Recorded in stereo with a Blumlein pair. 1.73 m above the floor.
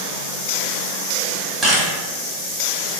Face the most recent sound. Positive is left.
turn(degrees=-20)